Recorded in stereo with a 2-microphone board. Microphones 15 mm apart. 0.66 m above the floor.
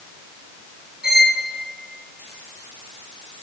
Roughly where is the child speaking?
I don't hear a child speaking.